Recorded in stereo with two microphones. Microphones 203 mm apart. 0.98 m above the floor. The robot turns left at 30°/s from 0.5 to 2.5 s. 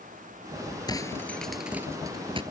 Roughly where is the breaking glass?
Centre.